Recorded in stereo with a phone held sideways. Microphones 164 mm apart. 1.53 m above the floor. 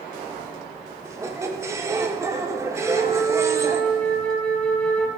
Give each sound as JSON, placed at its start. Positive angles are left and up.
{"t": 1.1, "sound": "a squeak", "side_deg": -15, "distance_m": 0.7}
{"t": 2.8, "sound": "a flute", "side_deg": 5, "distance_m": 0.9}